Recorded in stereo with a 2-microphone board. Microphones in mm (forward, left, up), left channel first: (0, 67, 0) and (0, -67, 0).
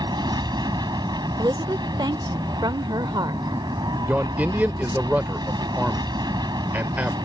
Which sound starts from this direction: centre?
A man speaking, at 4.1 s.